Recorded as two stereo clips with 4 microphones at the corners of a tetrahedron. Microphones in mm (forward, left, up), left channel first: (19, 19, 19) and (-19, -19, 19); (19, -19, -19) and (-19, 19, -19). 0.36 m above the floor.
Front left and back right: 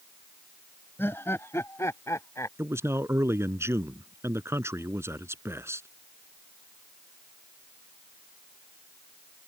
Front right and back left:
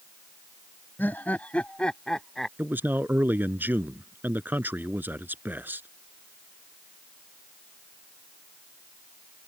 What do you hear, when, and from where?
1.0 s laughter: 5° left; by 2.5 s 40° left
2.6 s a man speaking: 170° right